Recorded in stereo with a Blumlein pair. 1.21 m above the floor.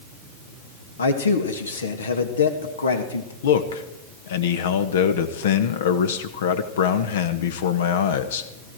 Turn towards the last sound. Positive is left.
turn(degrees=60)